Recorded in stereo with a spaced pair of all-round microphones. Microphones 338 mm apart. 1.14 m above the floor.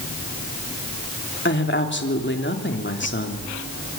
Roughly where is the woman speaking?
Left.